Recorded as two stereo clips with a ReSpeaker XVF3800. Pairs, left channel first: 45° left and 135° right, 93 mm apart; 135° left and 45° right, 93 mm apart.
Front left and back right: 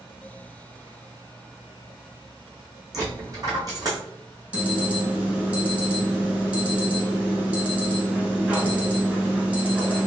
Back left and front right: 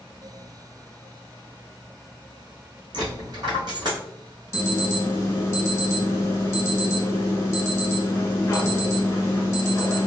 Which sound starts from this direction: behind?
An alarm, at 4.5 s.